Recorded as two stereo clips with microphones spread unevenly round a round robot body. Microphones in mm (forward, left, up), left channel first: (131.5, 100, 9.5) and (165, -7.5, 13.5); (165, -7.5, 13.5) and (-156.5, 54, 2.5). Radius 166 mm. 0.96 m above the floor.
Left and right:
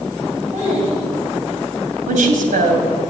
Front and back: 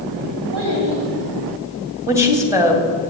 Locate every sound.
0.5 s a child speaking: 145° right, 3 m
2.1 s a woman speaking: 110° right, 2.5 m